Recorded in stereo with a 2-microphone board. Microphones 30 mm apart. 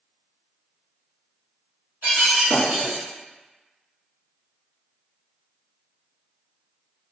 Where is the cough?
I don't hear a cough.